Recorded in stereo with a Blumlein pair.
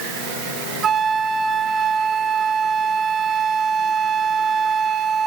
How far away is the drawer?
I don't hear a drawer.